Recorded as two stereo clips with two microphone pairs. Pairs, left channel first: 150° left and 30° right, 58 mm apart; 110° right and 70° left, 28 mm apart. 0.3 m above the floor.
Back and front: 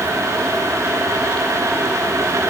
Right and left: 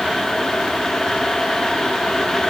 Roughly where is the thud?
I don't hear a thud.